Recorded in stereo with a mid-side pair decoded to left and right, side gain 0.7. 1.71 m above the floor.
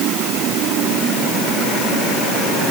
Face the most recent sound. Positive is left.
No sound to turn to.